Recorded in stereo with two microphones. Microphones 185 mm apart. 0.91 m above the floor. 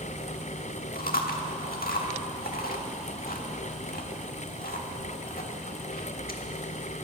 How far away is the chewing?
About 1.3 m.